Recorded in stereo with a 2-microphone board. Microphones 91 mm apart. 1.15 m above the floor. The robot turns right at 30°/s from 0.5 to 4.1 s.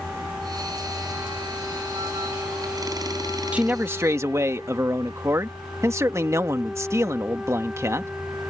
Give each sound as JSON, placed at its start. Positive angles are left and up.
{"t": 3.5, "sound": "a man speaking", "side_deg": -15}